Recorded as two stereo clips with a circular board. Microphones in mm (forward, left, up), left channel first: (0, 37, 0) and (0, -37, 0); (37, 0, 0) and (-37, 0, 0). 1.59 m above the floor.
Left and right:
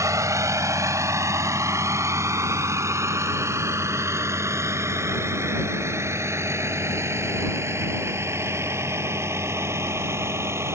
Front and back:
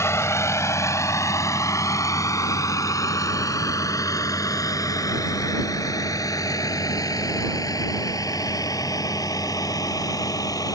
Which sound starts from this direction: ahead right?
A vehicle, at 0.0 s.